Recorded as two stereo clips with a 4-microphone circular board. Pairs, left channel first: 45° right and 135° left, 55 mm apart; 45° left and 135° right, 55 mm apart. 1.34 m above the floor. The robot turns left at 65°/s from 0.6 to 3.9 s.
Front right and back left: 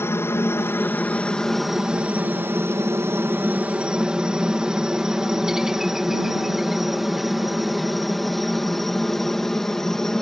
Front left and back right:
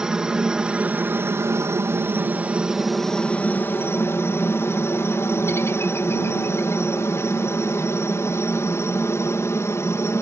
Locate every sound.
0.0 s a helicopter: 60° right; by 10.2 s 35° left